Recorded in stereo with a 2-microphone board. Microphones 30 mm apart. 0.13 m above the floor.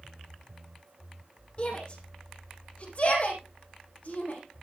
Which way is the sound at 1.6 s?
40° left (ahead or behind).